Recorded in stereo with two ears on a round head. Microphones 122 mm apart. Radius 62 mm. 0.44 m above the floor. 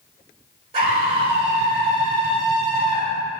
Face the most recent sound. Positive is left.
turn(degrees=-40)  # may be behind; listen again after turning